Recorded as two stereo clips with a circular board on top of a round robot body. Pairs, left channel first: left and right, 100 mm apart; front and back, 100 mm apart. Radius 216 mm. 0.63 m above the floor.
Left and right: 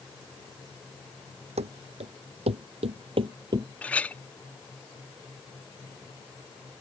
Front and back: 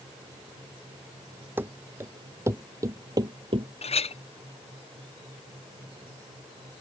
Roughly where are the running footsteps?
Right.